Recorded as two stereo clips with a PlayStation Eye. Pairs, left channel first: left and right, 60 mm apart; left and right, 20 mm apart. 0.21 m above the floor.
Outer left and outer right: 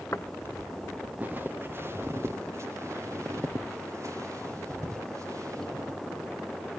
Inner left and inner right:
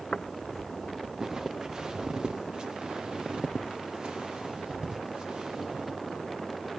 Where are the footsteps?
45° left (ahead or behind), 0.8 m; by 6.0 s 60° right (ahead or behind), 6.5 m.